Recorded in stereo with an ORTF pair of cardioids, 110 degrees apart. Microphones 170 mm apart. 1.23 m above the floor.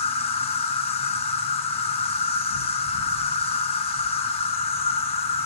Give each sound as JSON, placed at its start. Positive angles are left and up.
{"t": 0.0, "sound": "an insect", "azimuth_deg": 40, "distance_m": 1.0}